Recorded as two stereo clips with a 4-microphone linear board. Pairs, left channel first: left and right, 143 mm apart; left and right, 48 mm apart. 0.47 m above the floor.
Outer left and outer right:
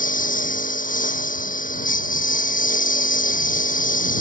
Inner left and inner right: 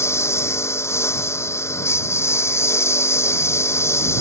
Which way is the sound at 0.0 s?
70° left (ahead or behind).